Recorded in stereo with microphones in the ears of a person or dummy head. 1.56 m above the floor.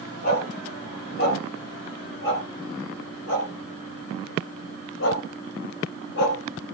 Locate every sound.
0.2 s a dog barking: 55° left (ahead or behind), 4 m; by 6.4 s 60° left (ahead or behind), 2.5 m